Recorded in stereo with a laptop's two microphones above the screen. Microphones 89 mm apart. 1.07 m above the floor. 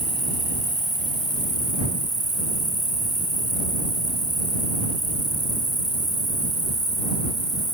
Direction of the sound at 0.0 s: 50° left (ahead or behind).